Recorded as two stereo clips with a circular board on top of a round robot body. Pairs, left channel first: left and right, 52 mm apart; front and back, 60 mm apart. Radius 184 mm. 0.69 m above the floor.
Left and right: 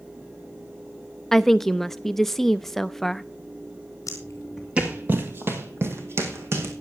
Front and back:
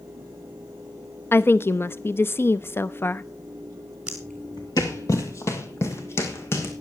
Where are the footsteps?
105° left, 0.8 m; by 6.7 s 50° right, 3 m.